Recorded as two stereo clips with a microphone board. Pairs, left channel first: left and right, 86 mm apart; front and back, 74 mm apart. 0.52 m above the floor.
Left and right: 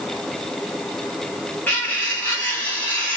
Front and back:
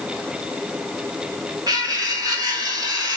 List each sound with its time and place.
1.7 s cutlery clinking: 160° left, 1.8 m